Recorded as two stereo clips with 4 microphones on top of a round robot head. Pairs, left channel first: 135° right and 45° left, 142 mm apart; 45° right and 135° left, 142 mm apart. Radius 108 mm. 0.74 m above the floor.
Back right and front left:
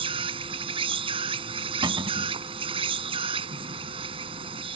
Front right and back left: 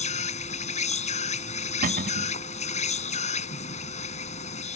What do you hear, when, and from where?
0.0 s an insect: 5° right
1.8 s a cupboard door: 105° left